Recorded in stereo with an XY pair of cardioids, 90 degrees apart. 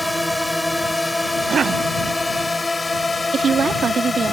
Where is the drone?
5° left; by 4.3 s 30° left.